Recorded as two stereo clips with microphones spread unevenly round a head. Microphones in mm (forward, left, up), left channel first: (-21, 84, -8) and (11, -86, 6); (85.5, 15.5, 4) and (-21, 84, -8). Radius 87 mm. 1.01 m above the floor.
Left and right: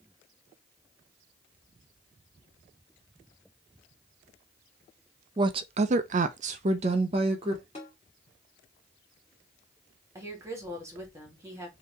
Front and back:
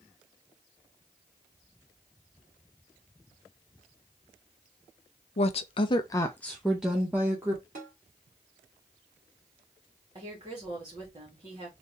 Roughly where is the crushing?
No crushing in this recording.